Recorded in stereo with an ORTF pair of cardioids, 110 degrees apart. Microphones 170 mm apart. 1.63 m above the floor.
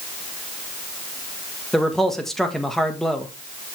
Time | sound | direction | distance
1.7 | a man speaking | straight ahead | 1.6 m